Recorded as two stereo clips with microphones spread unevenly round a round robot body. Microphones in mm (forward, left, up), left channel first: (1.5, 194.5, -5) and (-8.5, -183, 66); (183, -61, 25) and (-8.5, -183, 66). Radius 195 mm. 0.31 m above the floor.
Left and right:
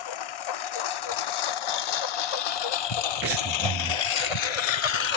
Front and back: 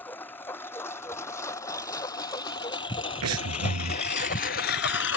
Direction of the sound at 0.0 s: 120° left.